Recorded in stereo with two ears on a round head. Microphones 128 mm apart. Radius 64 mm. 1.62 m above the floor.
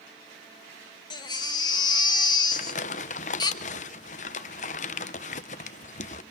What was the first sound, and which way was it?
A baby crying, 30° left (ahead or behind).